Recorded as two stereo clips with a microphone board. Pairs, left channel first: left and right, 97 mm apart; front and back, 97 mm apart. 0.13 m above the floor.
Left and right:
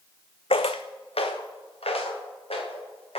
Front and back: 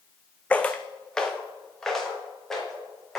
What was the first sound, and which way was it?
Footsteps, 75° left.